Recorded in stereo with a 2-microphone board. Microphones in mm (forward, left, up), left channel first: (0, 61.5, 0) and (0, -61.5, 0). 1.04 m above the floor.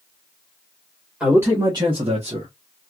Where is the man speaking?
10° right (ahead or behind), 1.2 m; by 2.5 s 55° right (ahead or behind), 1.2 m.